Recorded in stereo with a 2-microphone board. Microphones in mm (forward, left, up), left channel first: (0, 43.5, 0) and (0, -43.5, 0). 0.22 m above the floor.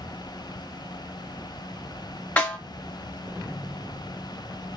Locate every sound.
2.4 s a snare drum: 15° left (ahead or behind), 1.8 m